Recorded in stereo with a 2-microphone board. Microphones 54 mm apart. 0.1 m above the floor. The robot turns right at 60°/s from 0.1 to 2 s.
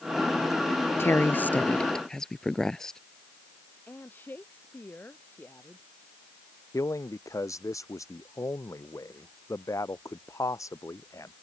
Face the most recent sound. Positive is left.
turn(degrees=70)  # may be behind; listen again after turning